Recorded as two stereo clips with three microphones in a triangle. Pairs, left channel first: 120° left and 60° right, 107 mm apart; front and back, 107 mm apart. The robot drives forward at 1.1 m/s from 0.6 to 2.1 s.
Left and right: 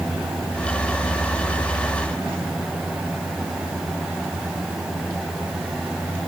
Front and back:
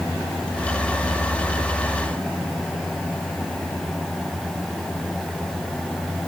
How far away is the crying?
No crying in this recording.